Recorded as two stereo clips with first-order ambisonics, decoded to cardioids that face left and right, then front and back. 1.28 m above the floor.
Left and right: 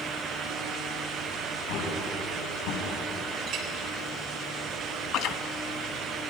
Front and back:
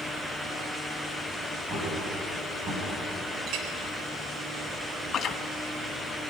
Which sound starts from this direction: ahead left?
Chewing, at 5.1 s.